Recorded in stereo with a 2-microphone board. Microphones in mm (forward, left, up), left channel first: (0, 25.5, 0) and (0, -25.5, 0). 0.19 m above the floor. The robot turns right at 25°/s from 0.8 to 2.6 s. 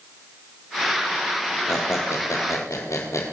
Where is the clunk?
No clunk in this recording.